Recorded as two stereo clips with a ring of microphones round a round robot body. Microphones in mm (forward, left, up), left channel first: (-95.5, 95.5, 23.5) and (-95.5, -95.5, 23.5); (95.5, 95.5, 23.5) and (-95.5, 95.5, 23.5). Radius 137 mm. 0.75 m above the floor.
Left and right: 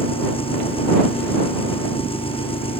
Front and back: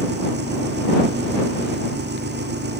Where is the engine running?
150° left.